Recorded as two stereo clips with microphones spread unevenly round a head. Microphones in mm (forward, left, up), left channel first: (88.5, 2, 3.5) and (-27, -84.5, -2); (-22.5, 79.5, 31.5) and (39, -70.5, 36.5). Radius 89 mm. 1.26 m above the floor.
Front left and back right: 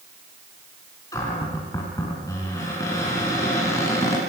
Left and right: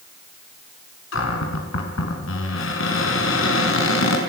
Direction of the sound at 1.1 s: 110° left.